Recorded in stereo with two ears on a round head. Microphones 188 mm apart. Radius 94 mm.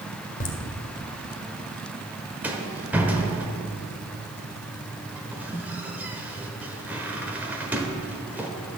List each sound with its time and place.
0.4 s laughter: 40° left (ahead or behind), 1.5 m
2.4 s a rattle: 10° right (ahead or behind), 1.0 m